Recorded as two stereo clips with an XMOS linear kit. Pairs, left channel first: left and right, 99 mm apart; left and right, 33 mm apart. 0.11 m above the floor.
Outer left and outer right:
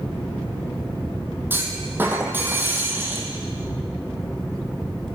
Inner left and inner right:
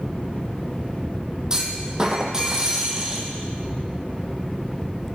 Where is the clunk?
20° right (ahead or behind), 1.5 m.